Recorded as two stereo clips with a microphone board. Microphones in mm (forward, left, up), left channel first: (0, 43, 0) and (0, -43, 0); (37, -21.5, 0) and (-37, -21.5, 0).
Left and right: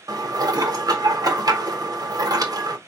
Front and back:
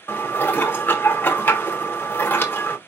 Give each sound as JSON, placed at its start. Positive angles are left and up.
{"t": 0.1, "sound": "dishes clattering", "azimuth_deg": -60, "distance_m": 0.8}